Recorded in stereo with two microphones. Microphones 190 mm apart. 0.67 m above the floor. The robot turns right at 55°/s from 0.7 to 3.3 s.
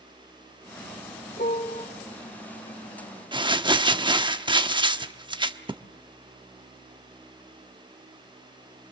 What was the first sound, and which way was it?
A piano, 50° left (ahead or behind).